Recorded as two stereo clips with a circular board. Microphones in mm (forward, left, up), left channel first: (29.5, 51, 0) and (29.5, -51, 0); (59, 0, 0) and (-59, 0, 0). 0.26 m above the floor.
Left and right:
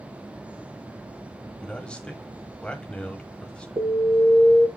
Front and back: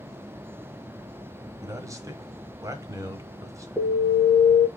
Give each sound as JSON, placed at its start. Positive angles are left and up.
{"t": 1.6, "sound": "a man speaking", "azimuth_deg": 160, "distance_m": 1.0}
{"t": 3.8, "sound": "an alarm", "azimuth_deg": -105, "distance_m": 1.8}